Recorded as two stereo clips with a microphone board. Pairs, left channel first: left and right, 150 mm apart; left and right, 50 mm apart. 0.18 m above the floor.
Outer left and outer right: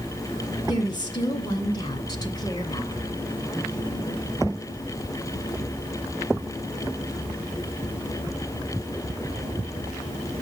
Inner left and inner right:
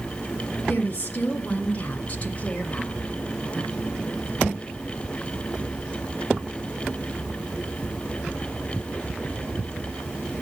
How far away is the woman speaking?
About 2.5 m.